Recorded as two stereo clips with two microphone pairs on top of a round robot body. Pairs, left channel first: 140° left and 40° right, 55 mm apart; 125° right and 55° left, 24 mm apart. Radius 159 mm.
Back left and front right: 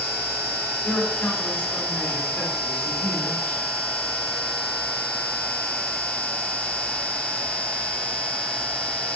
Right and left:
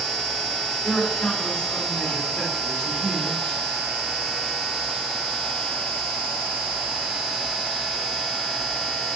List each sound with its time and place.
0.8 s a man speaking: 145° right, 3 m